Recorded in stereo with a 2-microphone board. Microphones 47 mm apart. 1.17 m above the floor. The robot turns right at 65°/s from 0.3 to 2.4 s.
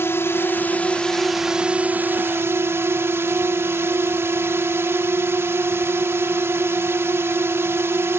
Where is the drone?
115° left; by 8.2 s 110° right.